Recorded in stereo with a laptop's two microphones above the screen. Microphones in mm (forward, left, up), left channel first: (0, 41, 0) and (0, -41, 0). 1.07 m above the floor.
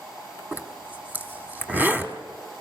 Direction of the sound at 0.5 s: 20° right (ahead or behind).